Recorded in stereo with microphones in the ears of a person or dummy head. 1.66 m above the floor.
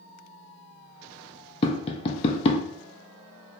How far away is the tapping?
About 0.5 m.